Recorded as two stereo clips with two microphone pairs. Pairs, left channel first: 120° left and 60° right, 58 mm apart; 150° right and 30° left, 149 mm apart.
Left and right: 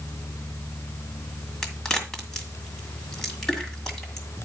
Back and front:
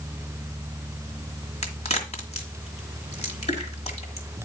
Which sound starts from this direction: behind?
A crack, at 1.6 s.